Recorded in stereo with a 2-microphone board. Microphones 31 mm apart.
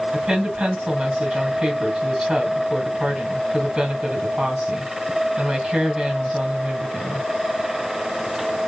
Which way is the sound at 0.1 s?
20° right (ahead or behind).